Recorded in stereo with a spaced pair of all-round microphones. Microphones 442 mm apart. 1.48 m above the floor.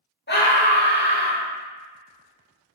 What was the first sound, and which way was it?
A scream, 20° left (ahead or behind).